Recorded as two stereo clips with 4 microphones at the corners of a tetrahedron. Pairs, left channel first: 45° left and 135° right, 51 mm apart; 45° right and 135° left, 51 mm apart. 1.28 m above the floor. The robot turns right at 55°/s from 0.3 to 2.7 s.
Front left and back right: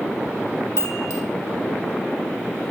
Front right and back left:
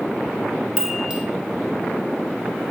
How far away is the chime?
About 0.7 m.